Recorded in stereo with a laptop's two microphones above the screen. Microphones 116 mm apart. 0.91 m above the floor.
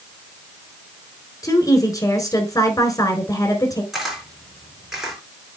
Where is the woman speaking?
30° left (ahead or behind), 4 m.